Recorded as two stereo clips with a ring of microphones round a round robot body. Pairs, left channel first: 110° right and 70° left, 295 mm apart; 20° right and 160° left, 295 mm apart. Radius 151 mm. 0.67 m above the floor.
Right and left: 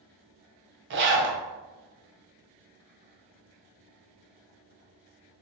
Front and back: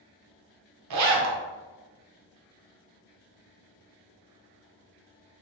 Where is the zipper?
120° left, 0.5 m.